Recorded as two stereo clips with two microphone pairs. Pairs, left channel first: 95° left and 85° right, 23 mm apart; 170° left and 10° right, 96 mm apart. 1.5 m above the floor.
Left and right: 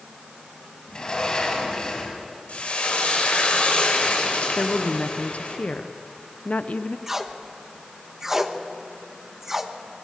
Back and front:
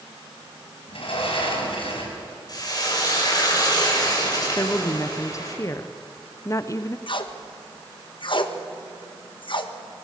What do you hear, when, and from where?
0.9 s a sliding door: 150° left, 5.5 m
2.5 s frying: 120° left, 5.5 m
4.6 s a woman speaking: 110° left, 0.9 m
7.1 s tape being pulled: 160° right, 1.4 m